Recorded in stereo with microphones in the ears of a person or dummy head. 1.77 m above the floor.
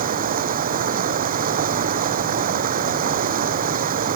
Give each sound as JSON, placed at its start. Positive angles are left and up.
{"t": 0.0, "sound": "running water", "side_deg": -45}